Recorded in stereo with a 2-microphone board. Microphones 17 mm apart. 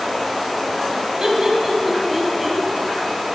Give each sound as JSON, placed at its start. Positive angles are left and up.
{"t": 1.2, "sound": "laughter", "side_deg": -35, "distance_m": 2.0}